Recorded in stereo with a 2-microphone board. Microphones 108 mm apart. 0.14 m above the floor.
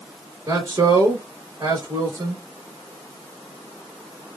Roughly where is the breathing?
No breathing in this recording.